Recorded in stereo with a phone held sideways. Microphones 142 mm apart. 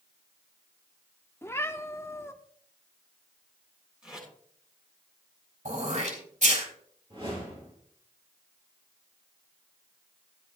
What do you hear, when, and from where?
1.4 s a cat meowing: 15° left (ahead or behind), 0.7 m
4.0 s tape being pulled: 5° right (ahead or behind), 7.5 m
5.7 s throat clearing: 65° right (ahead or behind), 3.5 m
7.1 s a whoosh: 40° right (ahead or behind), 7.5 m